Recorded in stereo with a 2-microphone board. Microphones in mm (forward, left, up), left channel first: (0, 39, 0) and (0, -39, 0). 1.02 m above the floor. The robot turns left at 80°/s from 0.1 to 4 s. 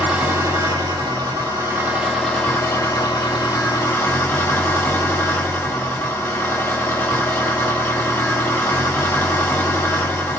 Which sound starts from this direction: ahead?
An engine running, at 0.0 s.